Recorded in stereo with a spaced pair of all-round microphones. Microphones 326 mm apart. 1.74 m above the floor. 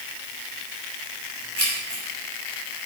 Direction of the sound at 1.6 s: 45° left (ahead or behind).